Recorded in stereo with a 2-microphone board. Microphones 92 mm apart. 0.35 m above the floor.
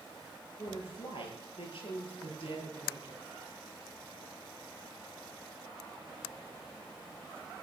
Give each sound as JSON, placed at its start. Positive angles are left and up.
{"t": 0.6, "sound": "a woman speaking", "side_deg": 75, "distance_m": 6.0}